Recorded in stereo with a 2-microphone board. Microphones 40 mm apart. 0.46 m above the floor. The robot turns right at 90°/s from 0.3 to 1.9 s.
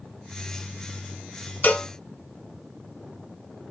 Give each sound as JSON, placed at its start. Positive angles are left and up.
{"t": 1.6, "sound": "a cowbell", "side_deg": 45, "distance_m": 1.0}